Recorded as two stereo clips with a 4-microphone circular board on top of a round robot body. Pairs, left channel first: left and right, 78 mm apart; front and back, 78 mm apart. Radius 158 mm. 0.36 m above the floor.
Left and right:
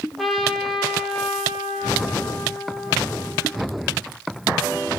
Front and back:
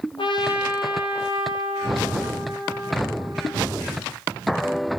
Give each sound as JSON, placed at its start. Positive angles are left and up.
{"t": 0.2, "sound": "a trumpet", "azimuth_deg": 0, "distance_m": 10.0}